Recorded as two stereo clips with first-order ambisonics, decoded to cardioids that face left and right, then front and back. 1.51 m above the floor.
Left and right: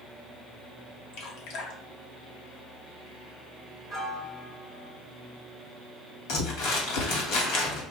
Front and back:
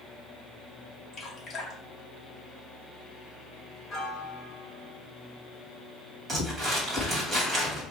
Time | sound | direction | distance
1.1 | dripping | 70° left | 1.0 m
3.9 | a piano | 40° left | 1.2 m
6.3 | crumpling | 105° left | 1.4 m